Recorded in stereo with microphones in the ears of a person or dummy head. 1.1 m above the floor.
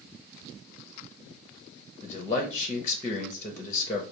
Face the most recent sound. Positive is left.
turn(degrees=20)  # may be behind; listen again after turning